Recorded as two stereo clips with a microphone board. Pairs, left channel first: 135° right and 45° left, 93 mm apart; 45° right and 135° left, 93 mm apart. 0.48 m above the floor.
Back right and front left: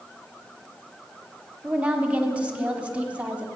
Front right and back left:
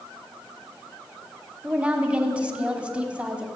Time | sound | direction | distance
1.6 | a woman speaking | 90° left | 1.2 m